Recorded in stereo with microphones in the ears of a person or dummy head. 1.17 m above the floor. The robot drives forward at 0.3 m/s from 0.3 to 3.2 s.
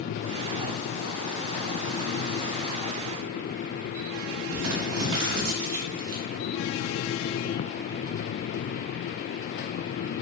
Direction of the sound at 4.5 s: 75° right (ahead or behind).